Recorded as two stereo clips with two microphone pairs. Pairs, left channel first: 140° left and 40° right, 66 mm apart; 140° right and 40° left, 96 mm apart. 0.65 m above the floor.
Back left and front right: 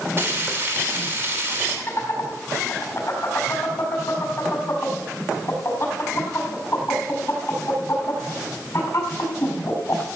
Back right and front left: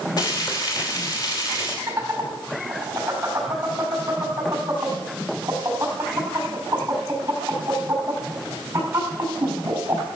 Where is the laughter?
105° left, 5 m.